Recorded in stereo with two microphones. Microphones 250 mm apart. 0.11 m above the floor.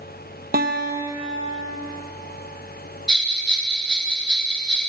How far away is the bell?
About 1.0 m.